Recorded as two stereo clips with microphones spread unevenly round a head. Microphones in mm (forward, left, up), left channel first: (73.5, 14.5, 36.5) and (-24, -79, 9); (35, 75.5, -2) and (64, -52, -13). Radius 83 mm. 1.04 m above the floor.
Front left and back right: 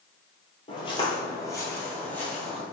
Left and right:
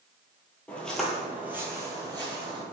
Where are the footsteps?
30° left, 1.4 m; by 2.6 s 30° right, 1.8 m.